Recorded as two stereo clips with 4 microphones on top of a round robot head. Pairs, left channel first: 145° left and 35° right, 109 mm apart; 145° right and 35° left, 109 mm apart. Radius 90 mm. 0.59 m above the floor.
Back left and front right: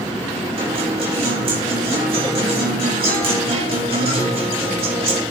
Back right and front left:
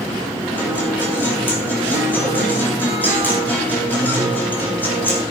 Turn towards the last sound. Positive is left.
turn(degrees=-70)